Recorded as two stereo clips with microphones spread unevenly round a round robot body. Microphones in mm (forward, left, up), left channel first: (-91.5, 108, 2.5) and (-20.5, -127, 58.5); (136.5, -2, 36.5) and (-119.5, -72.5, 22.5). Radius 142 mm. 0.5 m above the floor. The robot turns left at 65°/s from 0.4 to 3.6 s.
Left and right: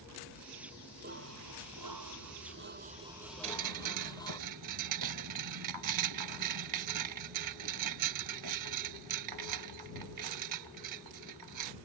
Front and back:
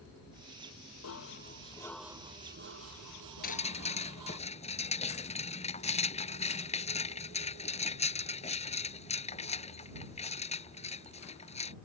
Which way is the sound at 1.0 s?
10° right.